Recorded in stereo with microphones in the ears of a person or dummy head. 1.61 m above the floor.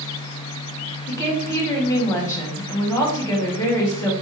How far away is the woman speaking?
About 1.1 m.